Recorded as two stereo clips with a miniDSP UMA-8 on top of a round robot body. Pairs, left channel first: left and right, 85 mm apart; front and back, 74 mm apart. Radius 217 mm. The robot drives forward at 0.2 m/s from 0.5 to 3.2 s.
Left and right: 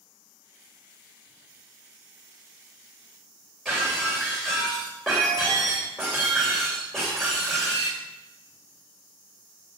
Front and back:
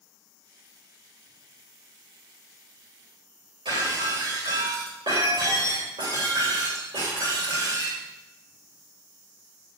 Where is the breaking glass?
175° left, 8 m.